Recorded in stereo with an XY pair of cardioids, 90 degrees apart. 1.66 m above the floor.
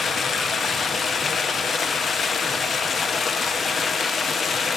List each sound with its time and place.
0.0 s running water: 50° left, 1.1 m